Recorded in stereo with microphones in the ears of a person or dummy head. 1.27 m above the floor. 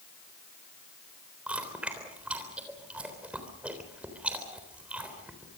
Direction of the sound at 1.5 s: 5° right (ahead or behind).